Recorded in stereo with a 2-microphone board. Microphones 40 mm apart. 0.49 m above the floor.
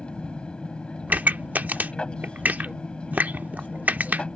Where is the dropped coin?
I don't hear a dropped coin.